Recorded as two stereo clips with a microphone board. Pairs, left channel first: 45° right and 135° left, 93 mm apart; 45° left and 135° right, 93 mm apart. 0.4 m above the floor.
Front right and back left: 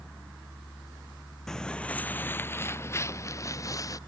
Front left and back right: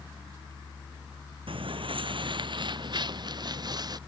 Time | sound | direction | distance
1.5 | footsteps | 130° right | ?